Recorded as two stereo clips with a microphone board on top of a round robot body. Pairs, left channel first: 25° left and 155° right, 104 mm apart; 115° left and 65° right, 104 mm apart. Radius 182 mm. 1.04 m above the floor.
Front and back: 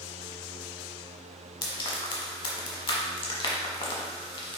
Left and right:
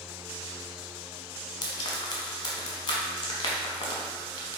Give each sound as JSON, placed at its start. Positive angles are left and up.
{"t": 1.6, "sound": "frying", "azimuth_deg": 65, "distance_m": 1.0}